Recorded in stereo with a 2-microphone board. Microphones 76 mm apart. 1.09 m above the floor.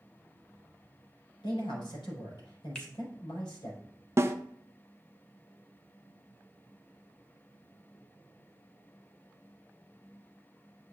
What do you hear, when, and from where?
1.4 s a man speaking: 90° left, 4.5 m
2.8 s a finger snap: 15° left (ahead or behind), 1.7 m
4.2 s a snare drum: 35° right (ahead or behind), 0.6 m